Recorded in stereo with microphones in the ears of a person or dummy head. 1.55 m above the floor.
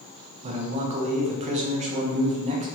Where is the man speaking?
35° right (ahead or behind), 0.6 m.